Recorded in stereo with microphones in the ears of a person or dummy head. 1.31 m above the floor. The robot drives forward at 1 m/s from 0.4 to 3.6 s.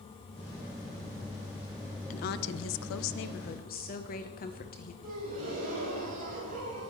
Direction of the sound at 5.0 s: 45° right (ahead or behind).